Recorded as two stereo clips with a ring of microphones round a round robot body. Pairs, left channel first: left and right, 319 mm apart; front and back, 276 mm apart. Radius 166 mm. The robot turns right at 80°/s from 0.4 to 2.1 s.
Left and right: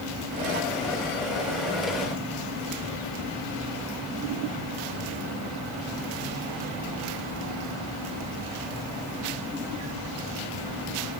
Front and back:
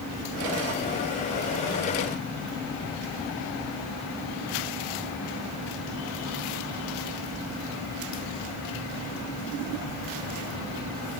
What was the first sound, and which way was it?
Only background noise.